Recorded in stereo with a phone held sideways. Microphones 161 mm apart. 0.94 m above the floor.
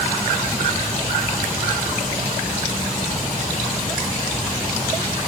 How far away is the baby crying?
I don't hear a baby crying.